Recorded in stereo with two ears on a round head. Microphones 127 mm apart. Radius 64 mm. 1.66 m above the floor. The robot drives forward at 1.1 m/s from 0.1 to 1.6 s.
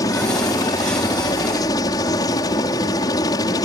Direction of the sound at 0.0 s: 25° left (ahead or behind).